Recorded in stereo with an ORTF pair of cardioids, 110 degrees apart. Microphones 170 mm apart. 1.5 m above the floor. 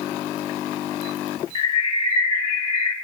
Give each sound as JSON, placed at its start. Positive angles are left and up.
{"t": 1.6, "sound": "a bird", "azimuth_deg": 35, "distance_m": 1.6}